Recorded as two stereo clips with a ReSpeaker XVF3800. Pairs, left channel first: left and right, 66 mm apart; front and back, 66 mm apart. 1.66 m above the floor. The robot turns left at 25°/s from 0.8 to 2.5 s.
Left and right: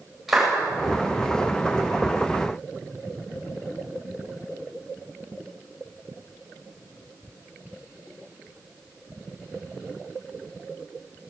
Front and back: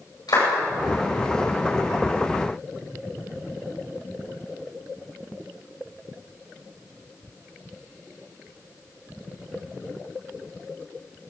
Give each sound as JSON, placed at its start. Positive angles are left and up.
{"t": 0.3, "sound": "a clap", "azimuth_deg": -5, "distance_m": 8.5}